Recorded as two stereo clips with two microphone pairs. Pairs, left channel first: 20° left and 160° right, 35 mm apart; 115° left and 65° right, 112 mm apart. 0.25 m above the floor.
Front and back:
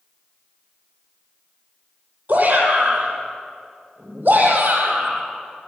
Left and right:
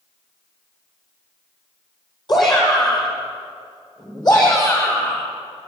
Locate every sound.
2.3 s a shout: 160° left, 9 m; by 5.3 s 170° left, 8.5 m